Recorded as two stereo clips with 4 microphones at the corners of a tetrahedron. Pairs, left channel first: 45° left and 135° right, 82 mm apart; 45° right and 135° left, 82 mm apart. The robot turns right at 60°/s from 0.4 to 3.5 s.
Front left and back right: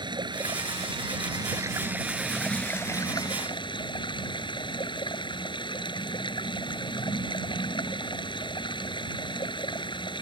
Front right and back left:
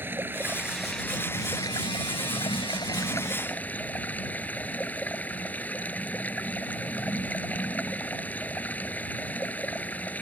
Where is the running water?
160° right; by 10.2 s 25° left.